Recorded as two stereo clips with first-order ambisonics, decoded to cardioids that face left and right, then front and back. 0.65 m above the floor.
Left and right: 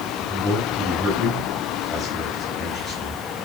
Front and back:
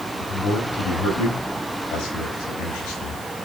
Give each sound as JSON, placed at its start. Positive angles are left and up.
{"t": 0.2, "sound": "a man speaking", "azimuth_deg": 15, "distance_m": 3.5}